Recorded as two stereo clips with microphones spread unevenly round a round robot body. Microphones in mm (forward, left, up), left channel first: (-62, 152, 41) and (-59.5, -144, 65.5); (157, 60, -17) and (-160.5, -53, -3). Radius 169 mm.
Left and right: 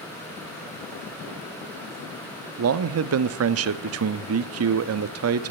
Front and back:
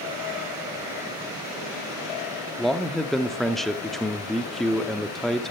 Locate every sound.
2.6 s a man speaking: 65° right, 0.7 m